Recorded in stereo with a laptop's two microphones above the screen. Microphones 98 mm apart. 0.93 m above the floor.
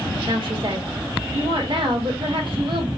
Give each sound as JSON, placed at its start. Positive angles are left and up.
{"t": 0.3, "sound": "a woman speaking", "side_deg": -55, "distance_m": 1.2}